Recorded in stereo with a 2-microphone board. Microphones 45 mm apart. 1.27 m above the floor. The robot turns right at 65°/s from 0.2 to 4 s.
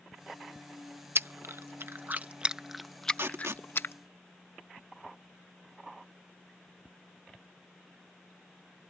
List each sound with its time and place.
1.1 s chewing: 60° right (ahead or behind); by 3.9 s 60° left (ahead or behind)
3.1 s tape being pulled: 55° right (ahead or behind); by 3.7 s 85° right